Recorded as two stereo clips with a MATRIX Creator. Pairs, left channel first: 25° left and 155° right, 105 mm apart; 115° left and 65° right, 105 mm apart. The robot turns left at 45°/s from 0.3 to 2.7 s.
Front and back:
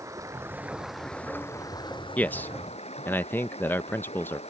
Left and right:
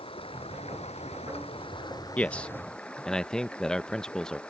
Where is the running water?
140° left; by 4.5 s 35° left.